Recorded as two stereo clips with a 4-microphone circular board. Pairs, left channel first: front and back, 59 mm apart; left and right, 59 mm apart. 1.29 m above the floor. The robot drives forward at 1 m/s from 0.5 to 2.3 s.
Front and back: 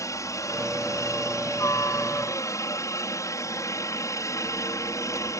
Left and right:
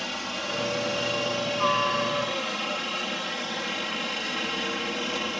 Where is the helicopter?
Straight ahead.